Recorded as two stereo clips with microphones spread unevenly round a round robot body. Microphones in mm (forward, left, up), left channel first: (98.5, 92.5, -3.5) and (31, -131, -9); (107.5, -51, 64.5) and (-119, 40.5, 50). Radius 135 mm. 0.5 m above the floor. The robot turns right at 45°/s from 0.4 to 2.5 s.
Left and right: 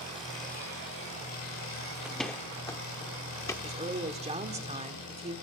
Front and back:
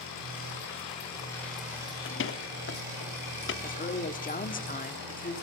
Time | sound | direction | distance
0.0 | an engine running | 15° left | 8.5 m
2.0 | a door slam | 25° right | 0.7 m
3.6 | a woman speaking | 60° right | 1.4 m